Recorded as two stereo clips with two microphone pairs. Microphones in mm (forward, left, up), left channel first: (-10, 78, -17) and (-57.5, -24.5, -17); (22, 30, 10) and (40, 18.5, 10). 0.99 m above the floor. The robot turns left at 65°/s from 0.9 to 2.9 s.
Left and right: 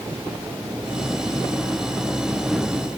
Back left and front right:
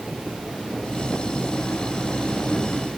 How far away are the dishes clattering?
No dishes clattering in this recording.